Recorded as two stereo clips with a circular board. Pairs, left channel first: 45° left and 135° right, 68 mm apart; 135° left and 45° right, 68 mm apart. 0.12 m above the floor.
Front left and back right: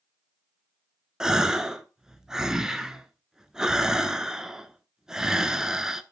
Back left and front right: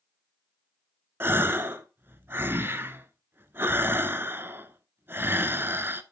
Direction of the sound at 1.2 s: 60° right.